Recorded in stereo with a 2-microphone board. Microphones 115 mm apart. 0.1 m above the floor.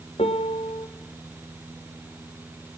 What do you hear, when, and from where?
0.2 s a piano: 65° left (ahead or behind), 1.6 m